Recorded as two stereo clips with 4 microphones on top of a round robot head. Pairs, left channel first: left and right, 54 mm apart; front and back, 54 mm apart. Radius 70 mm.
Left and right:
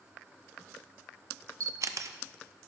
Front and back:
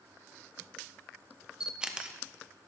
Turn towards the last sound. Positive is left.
turn(degrees=-105)